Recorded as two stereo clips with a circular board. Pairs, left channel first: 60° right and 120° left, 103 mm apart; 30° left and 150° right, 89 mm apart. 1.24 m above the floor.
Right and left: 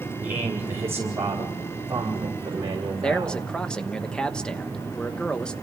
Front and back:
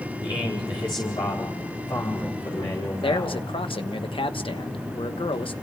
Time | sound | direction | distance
0.2 | a man speaking | 50° left | 3.5 m
3.0 | a man speaking | 20° left | 1.1 m